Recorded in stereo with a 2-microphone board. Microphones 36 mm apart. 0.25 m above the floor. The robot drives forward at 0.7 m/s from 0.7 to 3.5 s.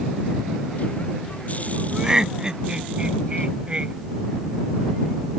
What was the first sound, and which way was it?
Laughter, 15° right (ahead or behind).